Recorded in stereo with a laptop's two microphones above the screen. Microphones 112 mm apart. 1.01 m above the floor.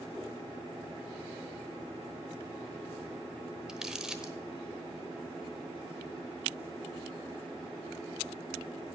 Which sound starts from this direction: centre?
Crumpling, at 3.7 s.